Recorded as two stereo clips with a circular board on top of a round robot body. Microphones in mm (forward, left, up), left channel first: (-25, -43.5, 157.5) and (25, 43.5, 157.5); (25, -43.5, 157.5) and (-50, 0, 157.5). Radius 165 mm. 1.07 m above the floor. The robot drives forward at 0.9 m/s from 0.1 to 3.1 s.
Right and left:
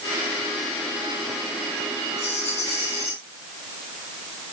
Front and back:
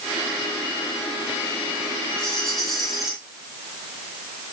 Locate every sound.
2.2 s a rattle: 110° right, 3.5 m; by 3.1 s 120° right, 4 m